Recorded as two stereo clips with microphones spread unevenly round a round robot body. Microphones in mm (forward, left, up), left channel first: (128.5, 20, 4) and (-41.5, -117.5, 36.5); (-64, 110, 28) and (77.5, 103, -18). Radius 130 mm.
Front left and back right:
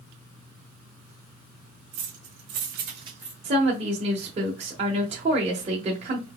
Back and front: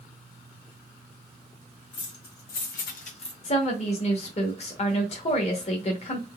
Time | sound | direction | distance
1.9 | keys jangling | 165° right | 1.9 m
3.4 | a woman speaking | 175° left | 1.0 m